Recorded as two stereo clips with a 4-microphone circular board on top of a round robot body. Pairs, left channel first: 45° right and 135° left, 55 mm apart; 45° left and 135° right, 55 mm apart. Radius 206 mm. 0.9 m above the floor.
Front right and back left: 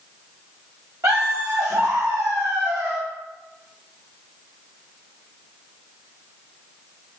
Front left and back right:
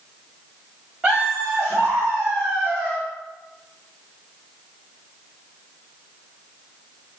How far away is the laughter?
About 4 m.